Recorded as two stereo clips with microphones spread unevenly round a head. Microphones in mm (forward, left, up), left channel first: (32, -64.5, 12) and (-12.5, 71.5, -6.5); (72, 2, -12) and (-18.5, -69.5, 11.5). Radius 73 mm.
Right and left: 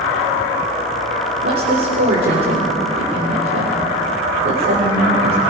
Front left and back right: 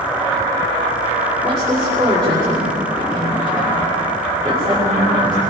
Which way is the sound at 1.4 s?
130° left.